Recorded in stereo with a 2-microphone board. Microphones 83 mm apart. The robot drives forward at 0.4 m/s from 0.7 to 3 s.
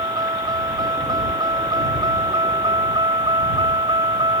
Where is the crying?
No crying in this recording.